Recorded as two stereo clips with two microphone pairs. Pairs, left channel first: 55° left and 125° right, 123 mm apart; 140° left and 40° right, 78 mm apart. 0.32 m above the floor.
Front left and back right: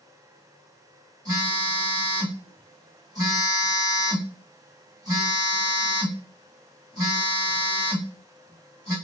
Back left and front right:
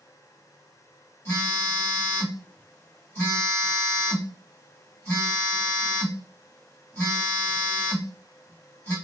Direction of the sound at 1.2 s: 165° right.